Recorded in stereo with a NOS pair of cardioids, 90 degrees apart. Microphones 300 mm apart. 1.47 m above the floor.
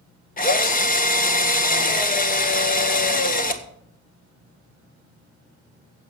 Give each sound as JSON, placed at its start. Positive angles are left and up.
{"t": 0.4, "sound": "a drill", "azimuth_deg": 30, "distance_m": 1.7}